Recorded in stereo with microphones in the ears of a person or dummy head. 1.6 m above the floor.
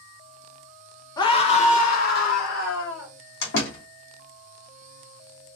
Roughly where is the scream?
Left.